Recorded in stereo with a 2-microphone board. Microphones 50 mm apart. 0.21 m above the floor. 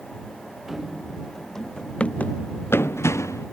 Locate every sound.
0.7 s running footsteps: 10° right (ahead or behind); by 3.5 s 80° left